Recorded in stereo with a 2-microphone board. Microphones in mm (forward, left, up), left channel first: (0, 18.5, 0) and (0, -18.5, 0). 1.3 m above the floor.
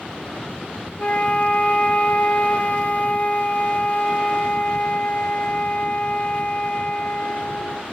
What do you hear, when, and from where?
1.0 s a flute: 40° left (ahead or behind), 0.6 m